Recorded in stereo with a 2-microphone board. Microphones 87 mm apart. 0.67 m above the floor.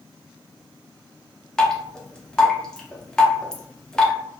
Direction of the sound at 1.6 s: 10° left (ahead or behind).